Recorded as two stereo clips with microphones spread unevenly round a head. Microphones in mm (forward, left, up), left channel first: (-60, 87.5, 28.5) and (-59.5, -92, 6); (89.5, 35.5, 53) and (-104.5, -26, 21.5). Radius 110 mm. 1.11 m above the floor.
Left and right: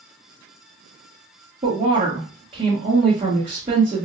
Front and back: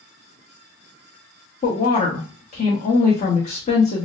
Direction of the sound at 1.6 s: 35° right.